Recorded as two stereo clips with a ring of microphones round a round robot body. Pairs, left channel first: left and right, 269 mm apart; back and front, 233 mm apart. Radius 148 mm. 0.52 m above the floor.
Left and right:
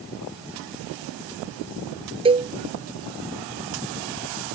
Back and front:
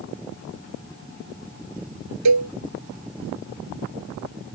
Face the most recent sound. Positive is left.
turn(degrees=-20)